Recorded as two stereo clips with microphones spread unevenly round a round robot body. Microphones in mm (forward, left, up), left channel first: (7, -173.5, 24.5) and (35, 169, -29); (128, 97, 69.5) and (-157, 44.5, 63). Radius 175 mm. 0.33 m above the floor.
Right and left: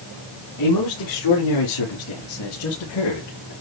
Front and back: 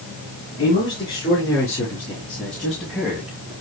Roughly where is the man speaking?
Ahead right.